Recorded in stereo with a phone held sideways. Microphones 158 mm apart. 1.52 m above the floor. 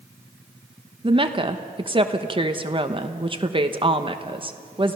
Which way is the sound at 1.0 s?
35° right (ahead or behind).